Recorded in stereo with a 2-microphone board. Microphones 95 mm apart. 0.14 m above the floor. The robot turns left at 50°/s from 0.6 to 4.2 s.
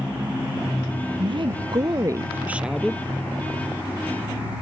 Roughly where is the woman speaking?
Right.